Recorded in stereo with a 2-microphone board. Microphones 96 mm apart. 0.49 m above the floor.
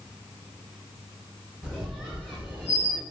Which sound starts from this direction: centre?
A squeak, at 1.6 s.